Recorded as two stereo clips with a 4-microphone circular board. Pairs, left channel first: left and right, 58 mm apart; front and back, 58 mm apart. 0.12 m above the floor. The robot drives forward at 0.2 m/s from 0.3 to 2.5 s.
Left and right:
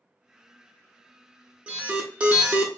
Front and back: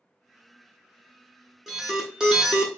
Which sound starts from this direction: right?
An alarm, at 1.7 s.